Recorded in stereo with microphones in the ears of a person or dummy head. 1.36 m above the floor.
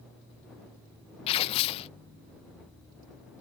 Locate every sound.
1.3 s tearing paper: 30° left (ahead or behind)